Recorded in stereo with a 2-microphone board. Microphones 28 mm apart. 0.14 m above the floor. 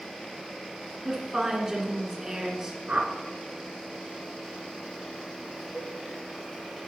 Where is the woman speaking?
20° right (ahead or behind), 2.0 m.